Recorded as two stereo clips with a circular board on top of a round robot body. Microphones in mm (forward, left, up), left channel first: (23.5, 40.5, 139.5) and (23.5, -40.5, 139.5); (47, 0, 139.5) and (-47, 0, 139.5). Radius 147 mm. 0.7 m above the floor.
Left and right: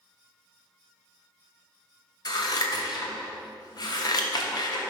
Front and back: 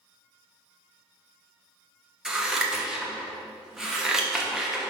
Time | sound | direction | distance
2.2 | scissors | 95° left | 1.3 m